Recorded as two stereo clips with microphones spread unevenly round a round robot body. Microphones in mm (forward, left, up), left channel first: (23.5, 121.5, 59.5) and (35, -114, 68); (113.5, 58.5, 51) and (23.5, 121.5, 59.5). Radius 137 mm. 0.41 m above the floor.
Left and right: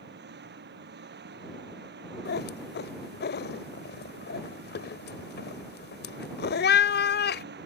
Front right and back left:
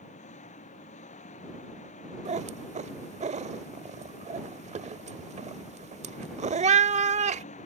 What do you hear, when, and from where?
0.0 s an engine running: 40° right
2.2 s a cat meowing: 140° left